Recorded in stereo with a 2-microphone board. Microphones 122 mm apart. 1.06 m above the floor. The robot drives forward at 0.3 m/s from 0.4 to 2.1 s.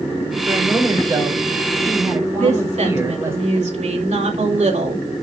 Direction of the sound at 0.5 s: 25° right (ahead or behind).